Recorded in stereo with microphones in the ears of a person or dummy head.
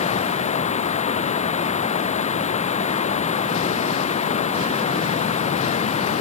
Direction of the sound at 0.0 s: 35° left (ahead or behind).